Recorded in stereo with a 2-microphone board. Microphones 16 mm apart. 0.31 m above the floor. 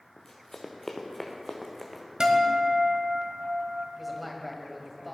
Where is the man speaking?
5° right (ahead or behind), 2 m.